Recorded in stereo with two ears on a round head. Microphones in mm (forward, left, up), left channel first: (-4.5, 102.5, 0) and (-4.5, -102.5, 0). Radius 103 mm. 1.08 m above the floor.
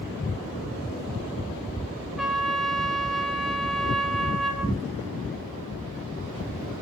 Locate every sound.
2.2 s a trumpet: centre (ahead or behind), 0.9 m